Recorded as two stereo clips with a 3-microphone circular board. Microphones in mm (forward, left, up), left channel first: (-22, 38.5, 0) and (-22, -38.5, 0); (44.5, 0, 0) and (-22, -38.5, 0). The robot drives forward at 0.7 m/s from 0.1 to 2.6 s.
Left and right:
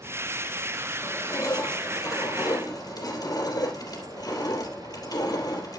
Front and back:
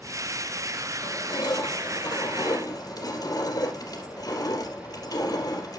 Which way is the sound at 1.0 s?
45° left.